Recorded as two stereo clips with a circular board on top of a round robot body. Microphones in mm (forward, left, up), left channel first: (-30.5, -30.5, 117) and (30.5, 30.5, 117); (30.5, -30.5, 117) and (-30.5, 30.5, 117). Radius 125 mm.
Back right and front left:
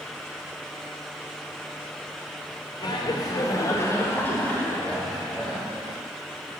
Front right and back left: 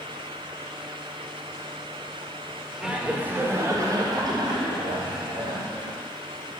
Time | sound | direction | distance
2.8 | laughter | 145° right | 1.7 m